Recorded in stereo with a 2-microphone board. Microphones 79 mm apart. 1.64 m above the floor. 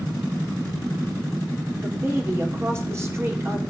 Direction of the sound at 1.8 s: 35° right (ahead or behind).